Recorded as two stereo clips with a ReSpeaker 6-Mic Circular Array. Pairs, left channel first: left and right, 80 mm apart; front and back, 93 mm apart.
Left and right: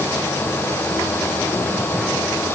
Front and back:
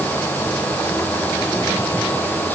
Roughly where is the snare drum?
I don't hear a snare drum.